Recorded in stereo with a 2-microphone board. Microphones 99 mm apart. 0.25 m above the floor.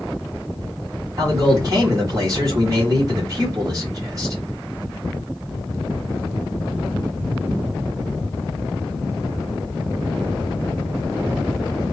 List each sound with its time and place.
1.2 s a man speaking: 35° right (ahead or behind), 2.5 m